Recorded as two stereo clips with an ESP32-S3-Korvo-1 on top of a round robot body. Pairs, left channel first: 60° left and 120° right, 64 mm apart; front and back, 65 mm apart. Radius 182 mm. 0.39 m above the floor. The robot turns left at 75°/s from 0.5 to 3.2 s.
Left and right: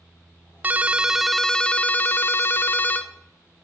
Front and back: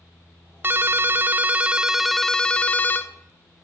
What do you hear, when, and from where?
0.6 s a ringtone: 160° right, 0.7 m; by 3.1 s 10° left, 0.7 m